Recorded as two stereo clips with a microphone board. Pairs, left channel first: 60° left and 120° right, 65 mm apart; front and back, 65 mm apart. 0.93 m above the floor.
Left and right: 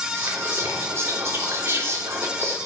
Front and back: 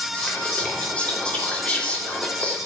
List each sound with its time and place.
0.1 s whispering: 70° right, 3 m